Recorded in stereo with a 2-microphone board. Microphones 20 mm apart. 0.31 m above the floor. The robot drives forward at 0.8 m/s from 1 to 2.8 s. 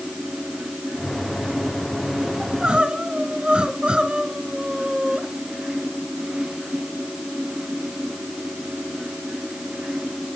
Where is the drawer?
I don't hear a drawer.